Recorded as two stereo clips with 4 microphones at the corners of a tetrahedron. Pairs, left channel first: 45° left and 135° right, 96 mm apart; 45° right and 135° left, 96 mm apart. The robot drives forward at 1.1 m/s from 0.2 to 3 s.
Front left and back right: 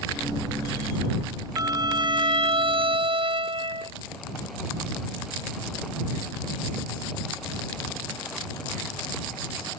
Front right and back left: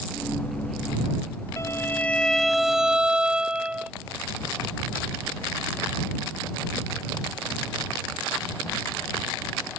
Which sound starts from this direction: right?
A violin, at 1.6 s.